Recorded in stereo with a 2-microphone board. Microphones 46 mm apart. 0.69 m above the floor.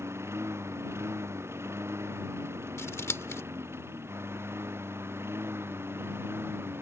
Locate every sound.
0.0 s a lawn mower: 70° right (ahead or behind); by 6.8 s 60° right (ahead or behind)
2.8 s scissors: 75° left (ahead or behind)